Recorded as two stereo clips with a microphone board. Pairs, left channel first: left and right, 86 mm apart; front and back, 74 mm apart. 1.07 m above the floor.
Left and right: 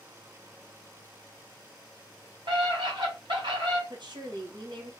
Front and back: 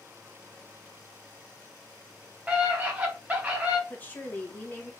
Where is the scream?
110° right, 1.9 m.